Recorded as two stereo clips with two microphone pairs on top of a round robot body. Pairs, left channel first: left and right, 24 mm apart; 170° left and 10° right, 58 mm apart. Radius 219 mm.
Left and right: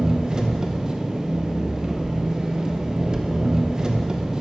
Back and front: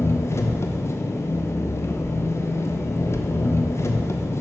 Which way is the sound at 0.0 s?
150° right.